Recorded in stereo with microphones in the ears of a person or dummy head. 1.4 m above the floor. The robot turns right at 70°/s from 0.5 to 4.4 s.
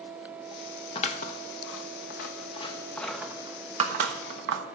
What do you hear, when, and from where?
0.9 s scissors: 30° left (ahead or behind), 1.0 m; by 4.6 s 65° right (ahead or behind), 1.0 m